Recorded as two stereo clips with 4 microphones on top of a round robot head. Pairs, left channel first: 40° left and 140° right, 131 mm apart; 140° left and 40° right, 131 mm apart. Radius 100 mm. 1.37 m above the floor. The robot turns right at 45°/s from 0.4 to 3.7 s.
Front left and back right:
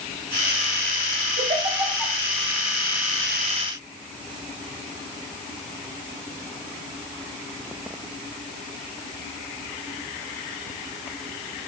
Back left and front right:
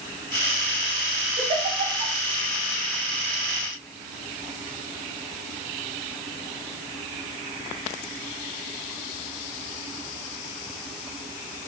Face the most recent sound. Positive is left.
turn(degrees=10)